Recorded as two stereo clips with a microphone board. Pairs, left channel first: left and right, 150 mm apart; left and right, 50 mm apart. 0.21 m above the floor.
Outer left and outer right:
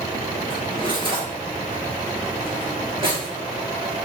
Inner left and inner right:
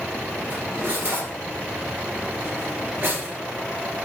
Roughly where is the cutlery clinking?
Right.